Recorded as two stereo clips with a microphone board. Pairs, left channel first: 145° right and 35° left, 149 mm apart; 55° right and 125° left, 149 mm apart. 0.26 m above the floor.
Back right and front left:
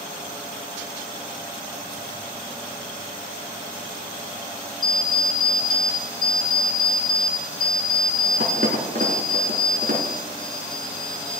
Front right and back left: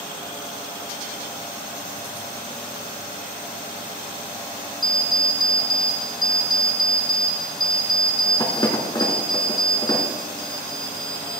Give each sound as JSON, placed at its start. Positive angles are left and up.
{"t": 4.8, "sound": "an alarm clock", "azimuth_deg": 5, "distance_m": 1.9}